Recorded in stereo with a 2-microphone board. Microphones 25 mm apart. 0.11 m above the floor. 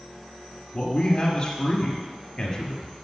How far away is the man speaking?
About 1.8 m.